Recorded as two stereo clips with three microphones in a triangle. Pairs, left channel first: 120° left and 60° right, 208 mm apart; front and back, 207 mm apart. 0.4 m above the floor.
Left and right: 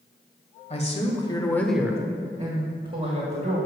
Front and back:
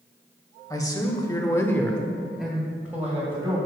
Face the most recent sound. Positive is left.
turn(degrees=-100)